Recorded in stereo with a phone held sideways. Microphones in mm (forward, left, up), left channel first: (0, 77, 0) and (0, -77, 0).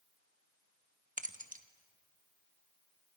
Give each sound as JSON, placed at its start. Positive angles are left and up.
{"t": 1.2, "sound": "keys jangling", "side_deg": -55, "distance_m": 1.0}